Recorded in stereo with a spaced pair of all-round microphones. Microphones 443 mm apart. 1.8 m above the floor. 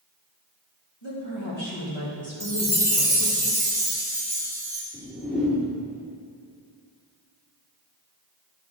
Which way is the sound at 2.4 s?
5° right (ahead or behind).